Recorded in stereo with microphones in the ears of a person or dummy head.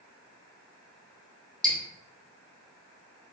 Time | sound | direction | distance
1.6 | dripping | 10° left (ahead or behind) | 1.2 m